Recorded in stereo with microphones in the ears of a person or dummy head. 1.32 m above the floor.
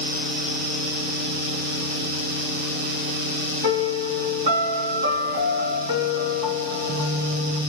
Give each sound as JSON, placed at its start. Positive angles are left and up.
{"t": 3.6, "sound": "a piano", "side_deg": -35, "distance_m": 2.5}